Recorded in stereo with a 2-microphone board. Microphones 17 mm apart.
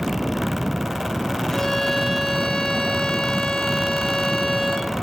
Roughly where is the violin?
Left.